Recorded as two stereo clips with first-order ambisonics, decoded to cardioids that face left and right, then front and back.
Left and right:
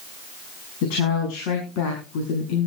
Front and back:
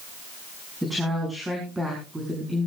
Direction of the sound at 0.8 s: 90° left.